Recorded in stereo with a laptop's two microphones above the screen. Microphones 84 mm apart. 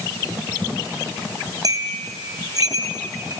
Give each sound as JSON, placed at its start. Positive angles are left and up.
{"t": 1.6, "sound": "a bell", "side_deg": -50, "distance_m": 3.5}